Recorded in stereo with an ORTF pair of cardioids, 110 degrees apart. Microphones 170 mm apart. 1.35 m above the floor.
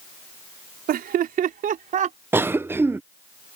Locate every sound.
0.9 s laughter: 65° right; by 2.2 s 45° right
2.3 s a cough: 15° right